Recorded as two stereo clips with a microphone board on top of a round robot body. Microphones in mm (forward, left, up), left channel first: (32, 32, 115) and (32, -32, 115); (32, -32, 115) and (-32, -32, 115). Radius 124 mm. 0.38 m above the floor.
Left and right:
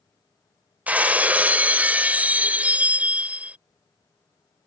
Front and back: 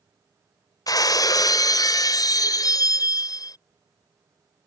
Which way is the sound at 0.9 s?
20° right.